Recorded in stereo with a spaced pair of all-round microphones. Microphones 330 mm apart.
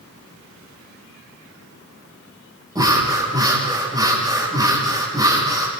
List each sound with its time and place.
2.8 s breathing: 10° right (ahead or behind), 8.5 m